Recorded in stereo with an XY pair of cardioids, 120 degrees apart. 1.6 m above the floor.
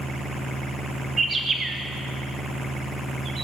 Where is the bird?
30° right, 1.9 m.